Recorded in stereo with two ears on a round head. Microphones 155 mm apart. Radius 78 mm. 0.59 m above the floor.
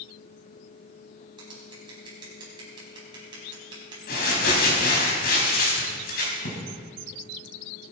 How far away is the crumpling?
About 4 m.